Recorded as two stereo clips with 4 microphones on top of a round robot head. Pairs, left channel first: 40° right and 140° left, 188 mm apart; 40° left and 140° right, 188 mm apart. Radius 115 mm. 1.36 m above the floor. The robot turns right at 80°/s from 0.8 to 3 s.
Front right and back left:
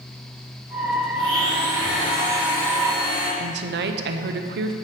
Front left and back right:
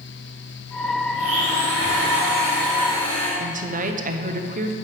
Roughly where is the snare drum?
I don't hear a snare drum.